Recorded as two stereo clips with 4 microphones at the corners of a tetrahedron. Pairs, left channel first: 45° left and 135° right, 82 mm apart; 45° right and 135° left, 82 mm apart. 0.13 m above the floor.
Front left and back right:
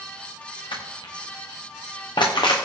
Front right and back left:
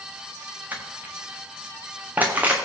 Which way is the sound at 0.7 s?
65° left.